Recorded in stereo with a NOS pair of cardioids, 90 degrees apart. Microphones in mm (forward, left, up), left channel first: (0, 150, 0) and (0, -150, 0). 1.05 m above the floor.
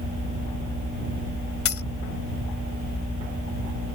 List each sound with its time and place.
1.6 s a dropped coin: 50° left